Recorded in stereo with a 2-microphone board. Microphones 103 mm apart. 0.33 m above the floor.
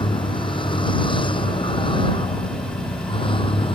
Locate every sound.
0.0 s a vehicle: 55° left (ahead or behind); by 3.8 s 60° left (ahead or behind)